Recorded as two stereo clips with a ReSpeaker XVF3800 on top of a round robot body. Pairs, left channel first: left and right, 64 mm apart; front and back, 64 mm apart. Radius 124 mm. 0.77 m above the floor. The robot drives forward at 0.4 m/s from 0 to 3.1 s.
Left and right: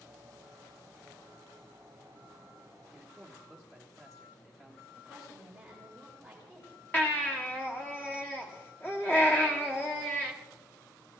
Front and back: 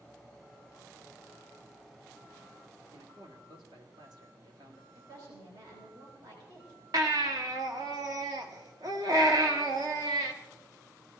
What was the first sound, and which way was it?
A man speaking, 175° left.